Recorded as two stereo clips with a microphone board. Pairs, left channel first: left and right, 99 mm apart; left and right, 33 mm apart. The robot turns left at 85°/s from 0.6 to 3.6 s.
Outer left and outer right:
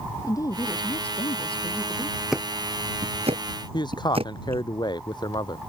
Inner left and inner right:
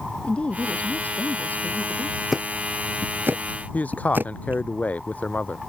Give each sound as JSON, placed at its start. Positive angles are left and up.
{"t": 0.2, "sound": "a woman speaking", "azimuth_deg": 145}
{"t": 2.3, "sound": "ticking", "side_deg": 0}
{"t": 3.7, "sound": "a man speaking", "side_deg": 45}